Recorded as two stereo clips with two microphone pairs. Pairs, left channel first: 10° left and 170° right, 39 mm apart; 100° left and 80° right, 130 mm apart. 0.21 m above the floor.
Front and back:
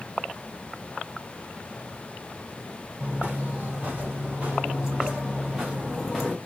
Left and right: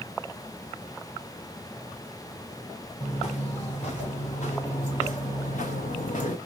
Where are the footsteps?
140° left, 3 m; by 6.4 s 95° left, 1.3 m.